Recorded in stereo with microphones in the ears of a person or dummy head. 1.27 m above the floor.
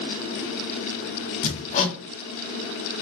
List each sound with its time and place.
1.4 s hammering: 45° left (ahead or behind), 0.8 m